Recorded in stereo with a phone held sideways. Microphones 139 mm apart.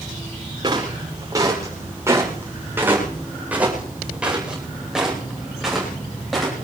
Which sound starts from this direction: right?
Footsteps, at 0.6 s.